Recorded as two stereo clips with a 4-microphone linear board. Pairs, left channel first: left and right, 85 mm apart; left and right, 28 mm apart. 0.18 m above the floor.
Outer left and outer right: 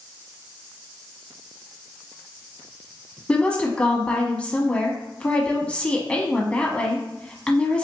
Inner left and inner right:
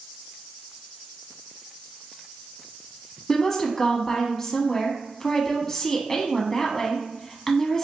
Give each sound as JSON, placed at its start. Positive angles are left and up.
{"t": 3.3, "sound": "a woman speaking", "side_deg": 15, "distance_m": 1.0}